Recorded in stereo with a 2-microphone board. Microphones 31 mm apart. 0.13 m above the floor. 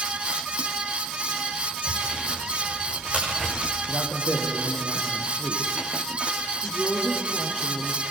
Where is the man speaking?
65° right (ahead or behind), 4.5 m.